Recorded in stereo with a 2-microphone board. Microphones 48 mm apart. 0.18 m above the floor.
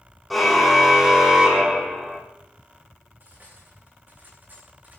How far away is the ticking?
No ticking in this recording.